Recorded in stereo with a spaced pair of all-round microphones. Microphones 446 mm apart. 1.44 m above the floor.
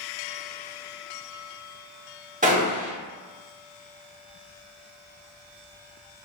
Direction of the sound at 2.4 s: 15° right (ahead or behind).